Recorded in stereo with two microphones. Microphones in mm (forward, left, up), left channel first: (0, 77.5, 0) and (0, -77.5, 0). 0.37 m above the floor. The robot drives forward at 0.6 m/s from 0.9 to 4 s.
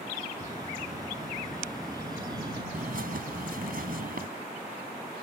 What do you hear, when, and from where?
0.4 s a bird: 25° right (ahead or behind)
2.7 s a bird: 65° right (ahead or behind); by 4.3 s 70° right (ahead or behind)